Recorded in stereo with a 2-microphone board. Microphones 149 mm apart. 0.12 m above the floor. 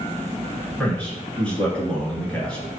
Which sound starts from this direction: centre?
A man speaking, at 0.8 s.